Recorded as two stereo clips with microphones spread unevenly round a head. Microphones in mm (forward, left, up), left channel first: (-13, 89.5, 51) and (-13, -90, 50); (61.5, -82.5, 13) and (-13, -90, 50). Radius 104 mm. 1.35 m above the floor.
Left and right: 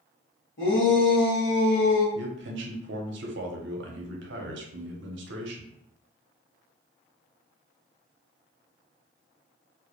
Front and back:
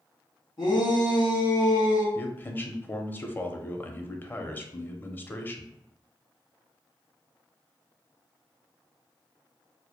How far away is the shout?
About 1.3 m.